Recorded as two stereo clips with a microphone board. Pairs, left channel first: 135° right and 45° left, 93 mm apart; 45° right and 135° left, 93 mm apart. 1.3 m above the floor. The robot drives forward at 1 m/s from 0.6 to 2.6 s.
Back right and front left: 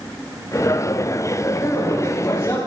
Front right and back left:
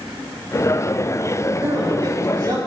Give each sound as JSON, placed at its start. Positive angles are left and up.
{"t": 1.6, "sound": "a man speaking", "azimuth_deg": 165, "distance_m": 2.0}